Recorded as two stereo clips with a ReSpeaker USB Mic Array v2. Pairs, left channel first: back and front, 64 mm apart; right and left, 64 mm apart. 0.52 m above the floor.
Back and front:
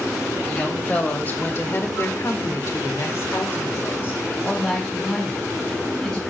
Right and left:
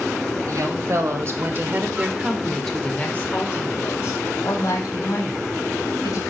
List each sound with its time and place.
0.5 s a woman speaking: 110° left, 2.5 m; by 6.2 s 110° right, 4 m